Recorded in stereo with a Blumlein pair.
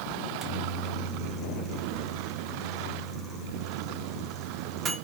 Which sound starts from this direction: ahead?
A microwave, at 0.2 s.